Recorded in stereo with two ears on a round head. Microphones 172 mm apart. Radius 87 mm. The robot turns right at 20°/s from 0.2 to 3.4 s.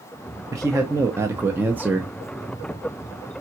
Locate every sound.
0.5 s a man speaking: 20° right (ahead or behind), 0.5 m; by 2.1 s 5° right (ahead or behind), 0.5 m